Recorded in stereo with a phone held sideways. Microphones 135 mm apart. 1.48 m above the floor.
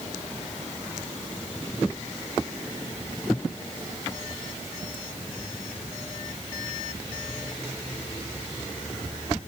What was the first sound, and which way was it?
Only background noise.